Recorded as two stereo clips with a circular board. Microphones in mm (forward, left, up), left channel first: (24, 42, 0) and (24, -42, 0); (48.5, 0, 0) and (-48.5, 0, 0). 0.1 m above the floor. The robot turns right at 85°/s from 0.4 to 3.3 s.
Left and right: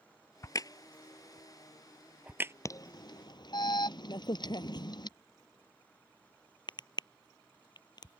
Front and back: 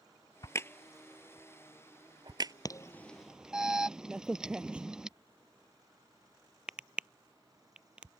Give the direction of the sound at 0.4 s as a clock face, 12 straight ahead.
11 o'clock.